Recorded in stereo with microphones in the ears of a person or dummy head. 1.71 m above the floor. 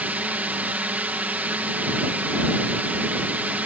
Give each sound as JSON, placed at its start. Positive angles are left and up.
{"t": 0.0, "sound": "a drone", "side_deg": -5}